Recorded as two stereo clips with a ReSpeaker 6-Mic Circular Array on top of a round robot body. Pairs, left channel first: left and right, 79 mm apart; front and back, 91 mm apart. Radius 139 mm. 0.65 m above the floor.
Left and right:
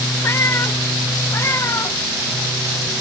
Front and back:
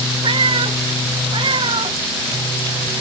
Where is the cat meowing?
150° left; by 3.0 s 145° left.